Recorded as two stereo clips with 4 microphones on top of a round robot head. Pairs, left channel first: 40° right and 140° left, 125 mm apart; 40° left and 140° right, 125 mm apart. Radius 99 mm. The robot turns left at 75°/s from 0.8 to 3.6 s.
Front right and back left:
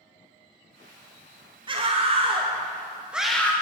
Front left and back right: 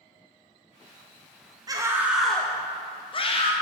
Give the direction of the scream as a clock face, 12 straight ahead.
6 o'clock.